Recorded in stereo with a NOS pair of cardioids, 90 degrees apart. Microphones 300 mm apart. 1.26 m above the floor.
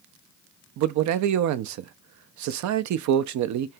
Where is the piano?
I don't hear a piano.